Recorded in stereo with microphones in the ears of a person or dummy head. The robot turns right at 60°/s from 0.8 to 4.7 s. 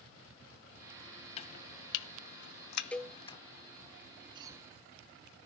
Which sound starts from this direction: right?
A cough, at 4.3 s.